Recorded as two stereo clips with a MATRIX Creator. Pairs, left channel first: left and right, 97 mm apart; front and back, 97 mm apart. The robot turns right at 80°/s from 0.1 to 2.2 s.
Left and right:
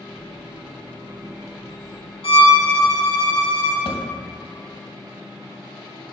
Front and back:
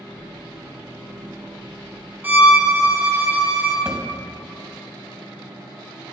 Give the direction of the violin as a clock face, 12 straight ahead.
8 o'clock.